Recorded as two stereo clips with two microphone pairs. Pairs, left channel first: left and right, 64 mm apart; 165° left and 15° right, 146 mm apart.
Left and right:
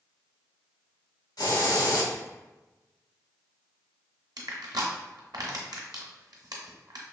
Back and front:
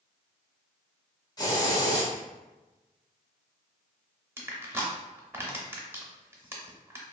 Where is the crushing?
85° right, 0.7 m.